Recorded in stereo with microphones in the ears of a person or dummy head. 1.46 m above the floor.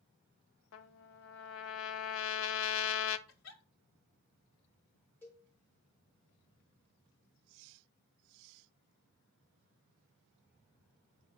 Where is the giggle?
80° left, 2 m.